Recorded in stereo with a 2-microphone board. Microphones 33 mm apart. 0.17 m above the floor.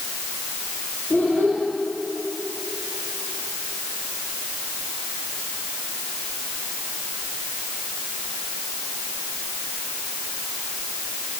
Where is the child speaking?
50° left (ahead or behind), 5 m.